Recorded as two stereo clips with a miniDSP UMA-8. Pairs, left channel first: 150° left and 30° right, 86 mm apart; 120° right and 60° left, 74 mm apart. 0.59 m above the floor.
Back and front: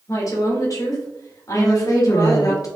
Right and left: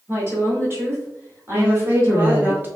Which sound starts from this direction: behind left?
A woman speaking, at 1.5 s.